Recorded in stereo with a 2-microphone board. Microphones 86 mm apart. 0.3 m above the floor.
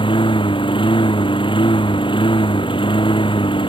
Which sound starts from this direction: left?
A lawn mower, at 0.0 s.